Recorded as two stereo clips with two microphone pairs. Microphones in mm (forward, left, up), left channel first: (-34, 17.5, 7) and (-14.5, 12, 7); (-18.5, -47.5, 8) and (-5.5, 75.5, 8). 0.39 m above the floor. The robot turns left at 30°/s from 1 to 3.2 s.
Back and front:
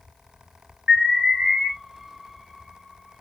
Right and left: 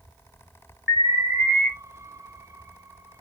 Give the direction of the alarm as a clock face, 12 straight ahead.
12 o'clock.